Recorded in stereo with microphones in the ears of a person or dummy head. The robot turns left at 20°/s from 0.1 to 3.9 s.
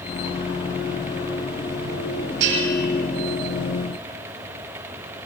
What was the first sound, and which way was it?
A bell, 65° right (ahead or behind).